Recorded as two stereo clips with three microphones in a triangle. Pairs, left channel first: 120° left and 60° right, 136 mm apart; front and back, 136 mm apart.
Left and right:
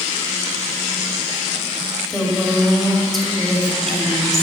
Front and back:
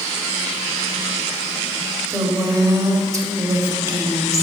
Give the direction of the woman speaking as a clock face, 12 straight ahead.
5 o'clock.